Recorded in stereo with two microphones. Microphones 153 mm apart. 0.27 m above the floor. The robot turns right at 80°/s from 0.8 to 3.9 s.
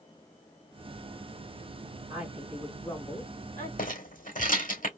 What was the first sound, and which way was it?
A woman speaking, 25° right.